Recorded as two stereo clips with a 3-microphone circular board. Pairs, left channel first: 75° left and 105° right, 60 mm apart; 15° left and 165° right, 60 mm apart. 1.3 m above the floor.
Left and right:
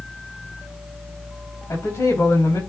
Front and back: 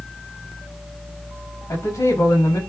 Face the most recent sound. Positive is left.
turn(degrees=35)